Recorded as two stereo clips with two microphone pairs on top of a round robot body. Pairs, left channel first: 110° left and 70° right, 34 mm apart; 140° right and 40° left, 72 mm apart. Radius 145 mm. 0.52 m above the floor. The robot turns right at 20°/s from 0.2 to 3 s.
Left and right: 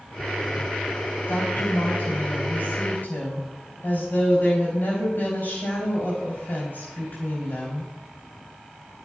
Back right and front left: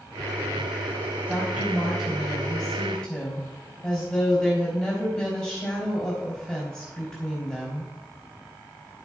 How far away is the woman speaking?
About 3.5 m.